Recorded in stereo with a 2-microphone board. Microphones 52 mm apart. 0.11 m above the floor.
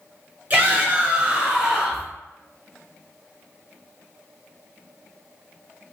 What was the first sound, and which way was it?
A shout, 30° right (ahead or behind).